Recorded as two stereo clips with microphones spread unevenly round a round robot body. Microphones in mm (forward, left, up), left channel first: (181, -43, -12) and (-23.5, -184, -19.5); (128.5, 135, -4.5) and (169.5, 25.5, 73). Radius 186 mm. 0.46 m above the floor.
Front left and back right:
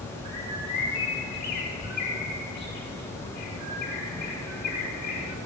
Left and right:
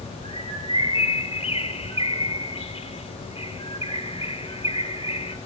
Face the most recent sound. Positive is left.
turn(degrees=70)